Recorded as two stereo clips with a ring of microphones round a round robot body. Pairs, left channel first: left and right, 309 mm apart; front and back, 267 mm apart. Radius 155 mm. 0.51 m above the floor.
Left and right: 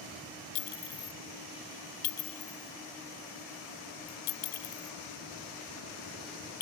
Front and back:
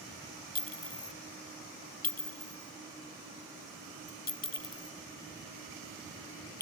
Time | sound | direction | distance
0.6 | a clink | 55° left | ?